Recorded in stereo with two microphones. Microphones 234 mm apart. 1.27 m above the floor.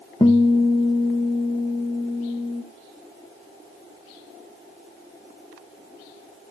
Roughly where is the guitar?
Centre.